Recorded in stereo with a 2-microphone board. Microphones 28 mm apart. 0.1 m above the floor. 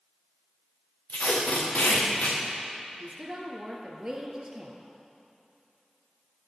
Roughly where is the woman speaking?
Right.